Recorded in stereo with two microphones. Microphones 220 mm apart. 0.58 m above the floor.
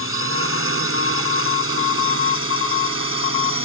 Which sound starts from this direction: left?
A drone, at 0.0 s.